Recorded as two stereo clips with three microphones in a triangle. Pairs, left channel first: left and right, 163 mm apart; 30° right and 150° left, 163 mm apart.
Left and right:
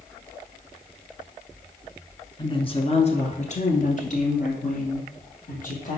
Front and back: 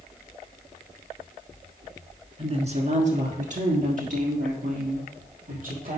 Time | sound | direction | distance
2.4 | a woman speaking | 130° left | 1.3 m